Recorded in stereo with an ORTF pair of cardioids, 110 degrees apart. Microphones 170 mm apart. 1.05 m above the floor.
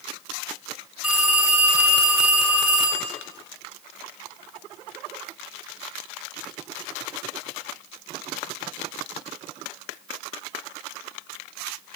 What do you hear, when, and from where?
1.0 s a phone ringing: 10° right, 3.5 m